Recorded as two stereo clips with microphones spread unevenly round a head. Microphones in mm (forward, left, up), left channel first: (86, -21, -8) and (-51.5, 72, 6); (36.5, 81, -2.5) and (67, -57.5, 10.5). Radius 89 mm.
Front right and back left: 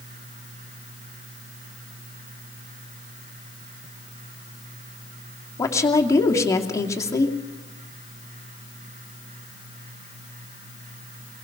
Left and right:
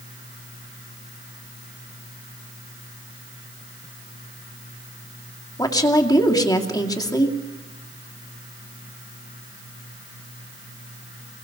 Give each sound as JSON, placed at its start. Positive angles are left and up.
{"t": 5.6, "sound": "a woman speaking", "azimuth_deg": 40, "distance_m": 2.5}